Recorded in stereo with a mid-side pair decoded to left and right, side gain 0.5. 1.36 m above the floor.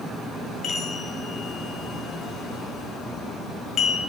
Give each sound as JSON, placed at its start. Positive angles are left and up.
{"t": 0.6, "sound": "a chime", "azimuth_deg": 50, "distance_m": 1.2}